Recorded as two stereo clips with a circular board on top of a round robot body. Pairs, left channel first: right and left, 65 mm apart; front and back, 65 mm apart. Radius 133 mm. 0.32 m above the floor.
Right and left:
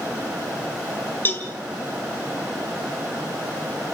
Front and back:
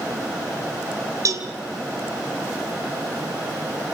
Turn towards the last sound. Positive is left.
turn(degrees=-145)